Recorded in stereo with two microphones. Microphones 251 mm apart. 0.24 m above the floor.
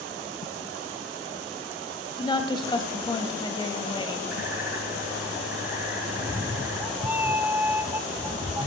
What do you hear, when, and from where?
2.2 s a woman speaking: 20° left (ahead or behind), 1.0 m
4.3 s a bird: 70° right (ahead or behind), 2.5 m
6.1 s a cat meowing: 10° right (ahead or behind), 0.6 m